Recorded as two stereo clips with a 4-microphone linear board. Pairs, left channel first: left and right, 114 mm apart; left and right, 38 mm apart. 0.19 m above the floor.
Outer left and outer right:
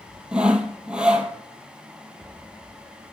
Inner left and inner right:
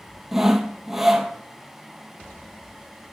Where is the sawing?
10° right (ahead or behind), 0.8 m.